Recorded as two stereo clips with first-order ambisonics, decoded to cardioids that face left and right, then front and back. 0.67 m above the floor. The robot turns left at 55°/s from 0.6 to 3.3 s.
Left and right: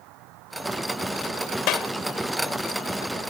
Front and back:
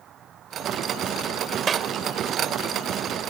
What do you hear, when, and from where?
0.0 s an insect: 120° right; by 3.3 s 90° left
1.7 s a clap: 115° left; by 1.9 s 105° left